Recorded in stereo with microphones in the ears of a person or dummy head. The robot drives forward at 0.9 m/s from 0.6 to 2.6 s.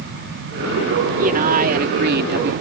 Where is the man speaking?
45° right (ahead or behind); by 2.5 s 60° right (ahead or behind).